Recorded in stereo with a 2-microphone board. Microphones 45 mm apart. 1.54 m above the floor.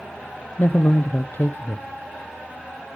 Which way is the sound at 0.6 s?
50° left (ahead or behind).